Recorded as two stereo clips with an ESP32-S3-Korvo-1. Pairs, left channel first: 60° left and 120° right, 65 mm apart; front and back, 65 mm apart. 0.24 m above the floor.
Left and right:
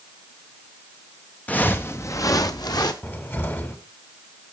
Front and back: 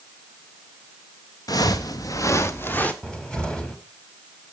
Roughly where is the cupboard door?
Ahead left.